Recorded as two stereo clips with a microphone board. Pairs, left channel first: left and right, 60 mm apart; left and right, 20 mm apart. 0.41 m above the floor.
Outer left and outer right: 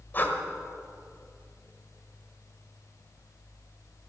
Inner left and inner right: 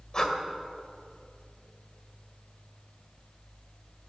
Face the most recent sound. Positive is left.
turn(degrees=35)  # may be behind; listen again after turning